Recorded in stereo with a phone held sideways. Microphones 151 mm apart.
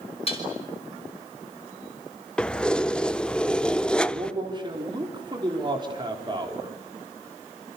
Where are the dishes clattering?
40° left (ahead or behind), 5 m.